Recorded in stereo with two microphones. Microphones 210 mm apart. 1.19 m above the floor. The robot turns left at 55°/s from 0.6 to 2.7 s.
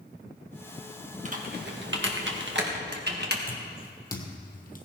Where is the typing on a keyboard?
35° right (ahead or behind), 1.7 m; by 3.4 s 55° right (ahead or behind), 1.7 m.